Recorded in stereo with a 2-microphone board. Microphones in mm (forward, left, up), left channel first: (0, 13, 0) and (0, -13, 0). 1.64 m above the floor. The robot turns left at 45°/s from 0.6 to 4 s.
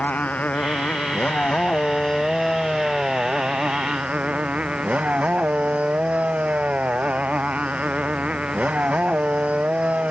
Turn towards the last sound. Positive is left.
turn(degrees=-55)